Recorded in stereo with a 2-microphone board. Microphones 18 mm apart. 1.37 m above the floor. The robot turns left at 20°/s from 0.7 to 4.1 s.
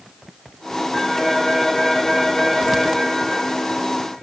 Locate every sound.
0.9 s a phone ringing: 165° right, 8.5 m; by 3.0 s 150° left, 8.5 m